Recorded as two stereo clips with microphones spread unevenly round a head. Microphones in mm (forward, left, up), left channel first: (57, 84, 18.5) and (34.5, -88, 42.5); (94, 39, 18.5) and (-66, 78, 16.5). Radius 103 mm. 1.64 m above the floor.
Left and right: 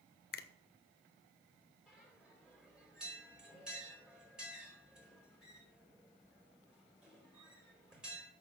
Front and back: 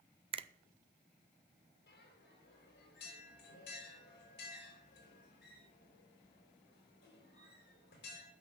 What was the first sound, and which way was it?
A finger snap, 120° left.